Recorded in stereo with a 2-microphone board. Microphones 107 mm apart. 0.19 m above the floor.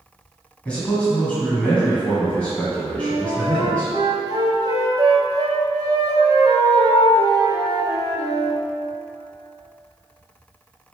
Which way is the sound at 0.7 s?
10° left (ahead or behind).